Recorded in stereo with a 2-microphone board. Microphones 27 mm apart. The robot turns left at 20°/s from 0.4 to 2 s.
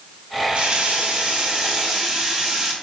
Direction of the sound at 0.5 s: 45° right (ahead or behind).